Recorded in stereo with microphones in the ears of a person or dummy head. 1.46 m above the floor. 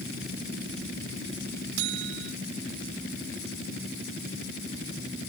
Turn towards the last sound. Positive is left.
turn(degrees=-65)  # may be behind; listen again after turning